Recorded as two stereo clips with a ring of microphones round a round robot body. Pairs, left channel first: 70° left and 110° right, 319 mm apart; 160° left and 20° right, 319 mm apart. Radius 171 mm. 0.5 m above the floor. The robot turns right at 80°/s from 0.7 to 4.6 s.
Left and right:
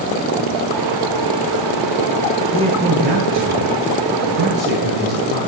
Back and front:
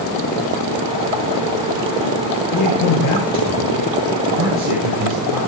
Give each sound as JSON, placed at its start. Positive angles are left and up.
{"t": 2.5, "sound": "a man speaking", "azimuth_deg": 140, "distance_m": 9.0}